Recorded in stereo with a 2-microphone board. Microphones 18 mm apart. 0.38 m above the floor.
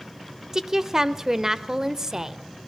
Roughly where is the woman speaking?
Right.